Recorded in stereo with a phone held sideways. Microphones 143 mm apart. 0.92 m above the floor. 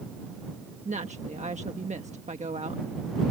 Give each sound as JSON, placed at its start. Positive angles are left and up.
{"t": 0.8, "sound": "a woman speaking", "side_deg": -55}